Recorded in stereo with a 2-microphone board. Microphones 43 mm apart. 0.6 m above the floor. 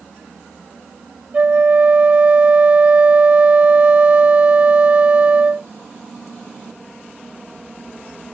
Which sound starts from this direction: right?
A flute, at 1.3 s.